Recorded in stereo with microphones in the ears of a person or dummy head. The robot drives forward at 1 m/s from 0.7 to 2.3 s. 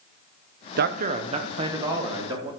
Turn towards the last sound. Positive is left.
turn(degrees=-15)  # may be behind; listen again after turning